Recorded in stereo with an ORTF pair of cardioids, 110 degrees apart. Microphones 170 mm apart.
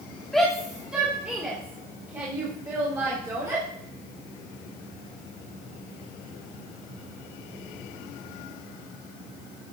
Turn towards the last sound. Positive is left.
turn(degrees=-20)